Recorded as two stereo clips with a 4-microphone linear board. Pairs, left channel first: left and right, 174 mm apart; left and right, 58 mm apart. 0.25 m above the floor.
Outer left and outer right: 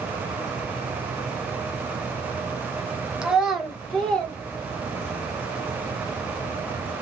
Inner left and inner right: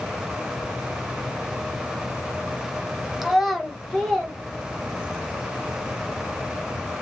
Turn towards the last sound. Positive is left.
turn(degrees=10)  # may be behind; listen again after turning